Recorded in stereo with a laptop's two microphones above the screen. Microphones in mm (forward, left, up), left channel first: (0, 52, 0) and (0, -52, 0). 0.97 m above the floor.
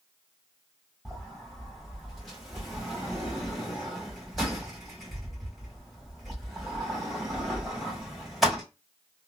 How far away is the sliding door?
About 2.5 m.